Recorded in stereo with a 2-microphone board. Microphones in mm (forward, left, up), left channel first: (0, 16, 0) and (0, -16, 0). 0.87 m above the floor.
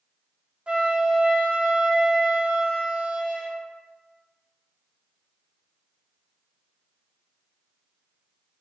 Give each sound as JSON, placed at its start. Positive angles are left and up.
{"t": 0.7, "sound": "a flute", "side_deg": -35, "distance_m": 0.6}